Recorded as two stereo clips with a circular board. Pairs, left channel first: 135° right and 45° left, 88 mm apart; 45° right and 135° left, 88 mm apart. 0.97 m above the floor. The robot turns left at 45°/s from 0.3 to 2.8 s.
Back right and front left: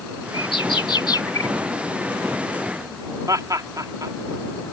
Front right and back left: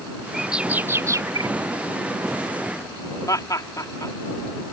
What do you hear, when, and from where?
0.3 s a bird: 135° right; by 1.5 s 170° left
3.3 s laughter: straight ahead